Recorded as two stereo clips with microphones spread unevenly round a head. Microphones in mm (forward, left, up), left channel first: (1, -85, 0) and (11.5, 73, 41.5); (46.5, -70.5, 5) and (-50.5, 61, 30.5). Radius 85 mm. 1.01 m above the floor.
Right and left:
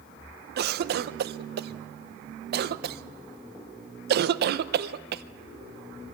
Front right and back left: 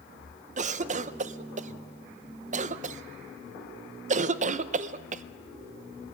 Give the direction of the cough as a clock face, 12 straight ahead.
9 o'clock.